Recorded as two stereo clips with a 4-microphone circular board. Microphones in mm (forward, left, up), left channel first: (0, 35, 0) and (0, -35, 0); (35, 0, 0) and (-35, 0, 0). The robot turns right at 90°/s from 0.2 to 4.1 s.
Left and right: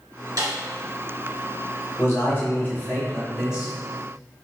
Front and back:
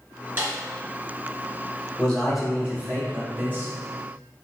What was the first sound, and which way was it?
A snare drum, 115° right.